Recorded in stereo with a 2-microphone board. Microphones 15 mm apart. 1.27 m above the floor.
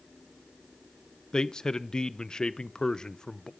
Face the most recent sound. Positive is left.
turn(degrees=55)  # may be behind; listen again after turning